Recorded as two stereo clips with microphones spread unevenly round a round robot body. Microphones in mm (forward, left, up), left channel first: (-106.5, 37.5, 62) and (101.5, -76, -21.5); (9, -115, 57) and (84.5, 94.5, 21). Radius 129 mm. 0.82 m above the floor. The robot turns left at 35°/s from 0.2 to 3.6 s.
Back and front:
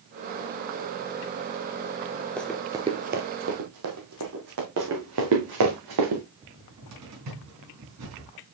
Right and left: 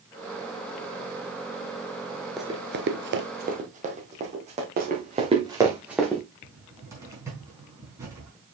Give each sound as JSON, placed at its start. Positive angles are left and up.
{"t": 2.4, "sound": "running footsteps", "azimuth_deg": -175, "distance_m": 0.8}
{"t": 4.8, "sound": "running footsteps", "azimuth_deg": 20, "distance_m": 3.0}
{"t": 6.4, "sound": "a cupboard door", "azimuth_deg": -10, "distance_m": 3.5}